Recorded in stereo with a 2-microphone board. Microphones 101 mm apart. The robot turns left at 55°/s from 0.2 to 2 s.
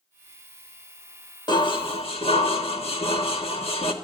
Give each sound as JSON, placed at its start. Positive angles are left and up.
{"t": 1.5, "sound": "dishes clattering", "side_deg": 45, "distance_m": 1.4}